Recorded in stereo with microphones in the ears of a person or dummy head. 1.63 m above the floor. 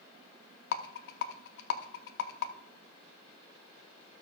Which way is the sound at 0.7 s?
70° left (ahead or behind).